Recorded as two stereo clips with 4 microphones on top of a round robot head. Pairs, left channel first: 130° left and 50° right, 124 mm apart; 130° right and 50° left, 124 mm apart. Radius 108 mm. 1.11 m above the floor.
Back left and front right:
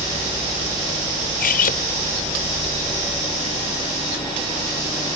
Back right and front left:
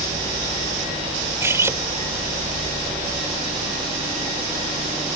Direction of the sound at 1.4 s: 125° left.